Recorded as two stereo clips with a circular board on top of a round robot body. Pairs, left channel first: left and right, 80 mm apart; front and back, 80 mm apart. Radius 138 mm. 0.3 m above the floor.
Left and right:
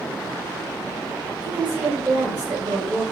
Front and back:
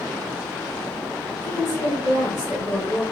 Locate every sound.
1.4 s a woman speaking: 25° right, 1.8 m